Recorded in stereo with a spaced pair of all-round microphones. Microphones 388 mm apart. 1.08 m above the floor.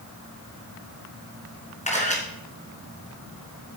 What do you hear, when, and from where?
1.9 s a camera shutter: 20° left (ahead or behind), 3 m